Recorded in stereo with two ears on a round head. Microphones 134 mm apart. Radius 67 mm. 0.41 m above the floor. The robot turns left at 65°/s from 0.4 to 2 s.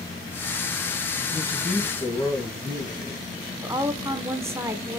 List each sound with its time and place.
1.3 s a man speaking: 155° right, 2.5 m; by 3.2 s 160° left, 2.5 m
3.6 s a woman speaking: 20° right (ahead or behind), 0.8 m